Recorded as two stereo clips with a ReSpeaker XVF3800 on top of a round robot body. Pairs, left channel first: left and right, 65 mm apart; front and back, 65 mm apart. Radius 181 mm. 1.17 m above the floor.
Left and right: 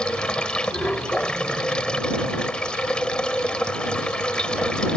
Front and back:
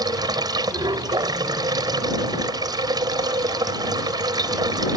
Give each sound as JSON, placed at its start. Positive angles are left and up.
{"t": 0.0, "sound": "running water", "azimuth_deg": 165}